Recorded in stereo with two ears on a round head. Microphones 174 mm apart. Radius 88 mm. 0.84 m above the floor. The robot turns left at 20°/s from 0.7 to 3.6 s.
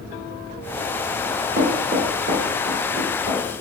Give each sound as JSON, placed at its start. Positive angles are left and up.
{"t": 1.3, "sound": "knocking", "side_deg": -45, "distance_m": 1.8}